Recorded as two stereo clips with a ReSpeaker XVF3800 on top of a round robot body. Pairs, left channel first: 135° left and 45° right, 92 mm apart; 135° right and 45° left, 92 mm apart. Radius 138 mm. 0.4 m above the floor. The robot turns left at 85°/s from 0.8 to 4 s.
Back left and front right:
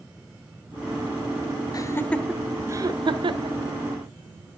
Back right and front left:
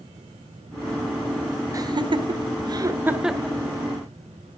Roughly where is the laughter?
Left.